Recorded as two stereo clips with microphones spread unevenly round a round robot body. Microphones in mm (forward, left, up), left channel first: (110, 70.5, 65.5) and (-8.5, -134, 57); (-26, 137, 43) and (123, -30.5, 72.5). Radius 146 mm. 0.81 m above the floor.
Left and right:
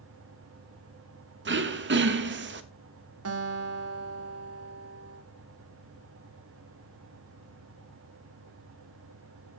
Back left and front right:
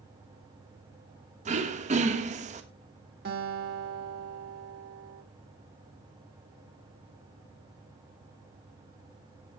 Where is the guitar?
105° right, 1.7 m.